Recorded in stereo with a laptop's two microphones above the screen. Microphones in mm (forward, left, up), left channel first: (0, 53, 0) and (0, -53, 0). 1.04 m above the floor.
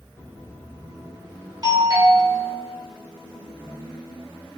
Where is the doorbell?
40° right (ahead or behind), 4.5 m.